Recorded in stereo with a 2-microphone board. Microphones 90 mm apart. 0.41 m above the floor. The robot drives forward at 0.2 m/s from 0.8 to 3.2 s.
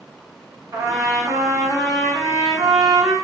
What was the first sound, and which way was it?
A trumpet, 40° right (ahead or behind).